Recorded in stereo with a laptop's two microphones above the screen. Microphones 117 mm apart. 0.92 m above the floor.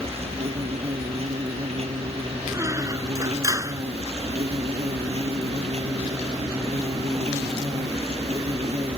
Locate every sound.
0.0 s an insect: 65° right (ahead or behind)
2.5 s a squeak: 30° right (ahead or behind)